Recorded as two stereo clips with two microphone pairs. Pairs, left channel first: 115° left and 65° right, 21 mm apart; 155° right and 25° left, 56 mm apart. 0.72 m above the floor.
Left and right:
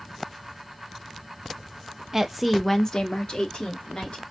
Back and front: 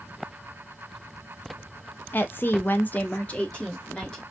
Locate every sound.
2.1 s a woman speaking: 125° right, 0.7 m; by 4.2 s 125° left, 1.5 m